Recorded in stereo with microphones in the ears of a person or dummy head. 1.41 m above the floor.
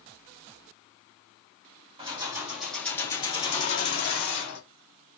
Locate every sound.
2.0 s keys jangling: 20° right (ahead or behind), 0.9 m; by 4.6 s 55° left (ahead or behind), 1.6 m